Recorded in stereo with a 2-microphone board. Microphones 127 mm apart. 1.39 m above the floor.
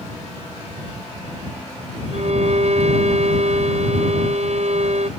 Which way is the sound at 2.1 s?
65° right (ahead or behind).